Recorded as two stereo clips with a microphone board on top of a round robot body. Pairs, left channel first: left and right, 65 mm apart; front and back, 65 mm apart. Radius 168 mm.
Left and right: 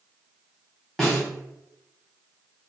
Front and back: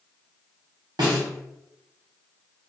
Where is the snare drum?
175° left, 0.8 m.